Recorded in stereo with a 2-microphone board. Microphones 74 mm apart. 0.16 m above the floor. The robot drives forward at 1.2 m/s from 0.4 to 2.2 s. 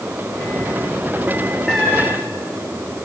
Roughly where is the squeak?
Centre.